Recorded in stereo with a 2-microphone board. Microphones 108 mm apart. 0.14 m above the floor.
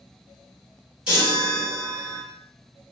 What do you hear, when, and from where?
1.1 s a chime: 10° right (ahead or behind), 1.9 m